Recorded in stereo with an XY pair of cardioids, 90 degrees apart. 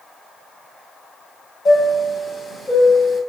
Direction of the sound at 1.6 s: 50° left.